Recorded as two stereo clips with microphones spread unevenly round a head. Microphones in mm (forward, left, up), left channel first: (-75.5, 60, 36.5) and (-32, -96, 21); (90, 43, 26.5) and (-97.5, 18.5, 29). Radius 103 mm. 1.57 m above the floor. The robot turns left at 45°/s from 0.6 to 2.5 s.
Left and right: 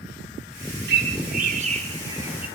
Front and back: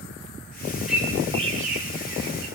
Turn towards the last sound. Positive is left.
turn(degrees=-160)